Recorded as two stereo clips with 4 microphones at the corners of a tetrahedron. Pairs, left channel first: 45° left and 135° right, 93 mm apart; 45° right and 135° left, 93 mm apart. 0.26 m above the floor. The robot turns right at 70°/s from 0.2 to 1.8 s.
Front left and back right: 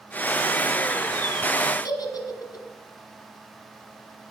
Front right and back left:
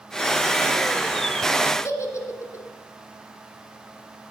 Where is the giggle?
5° left, 1.4 m.